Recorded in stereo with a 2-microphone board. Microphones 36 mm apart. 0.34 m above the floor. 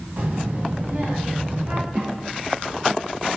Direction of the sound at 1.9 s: 65° right (ahead or behind).